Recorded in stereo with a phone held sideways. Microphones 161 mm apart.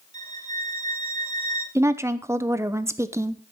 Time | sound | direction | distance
0.1 | a violin | 25° left (ahead or behind) | 2.5 m
1.8 | a woman speaking | 15° right (ahead or behind) | 0.7 m